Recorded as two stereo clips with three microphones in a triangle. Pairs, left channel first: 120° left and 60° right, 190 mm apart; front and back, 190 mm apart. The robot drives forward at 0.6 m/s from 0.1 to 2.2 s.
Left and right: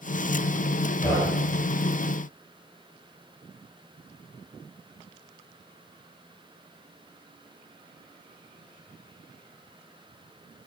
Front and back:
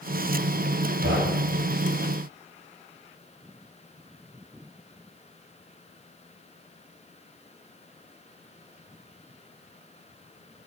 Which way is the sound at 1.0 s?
160° right.